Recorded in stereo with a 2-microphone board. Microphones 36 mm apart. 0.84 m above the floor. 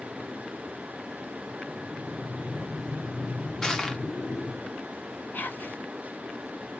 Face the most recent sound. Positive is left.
turn(degrees=60)  # may be behind; listen again after turning